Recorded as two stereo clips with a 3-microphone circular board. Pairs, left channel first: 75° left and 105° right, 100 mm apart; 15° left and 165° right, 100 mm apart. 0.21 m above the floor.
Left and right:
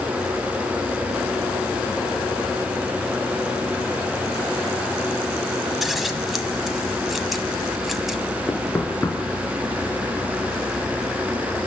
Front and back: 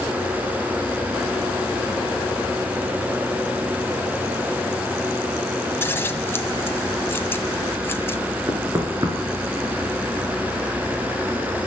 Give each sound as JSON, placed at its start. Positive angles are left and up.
{"t": 5.8, "sound": "scissors", "azimuth_deg": -20, "distance_m": 1.5}
{"t": 8.5, "sound": "knocking", "azimuth_deg": 140, "distance_m": 3.0}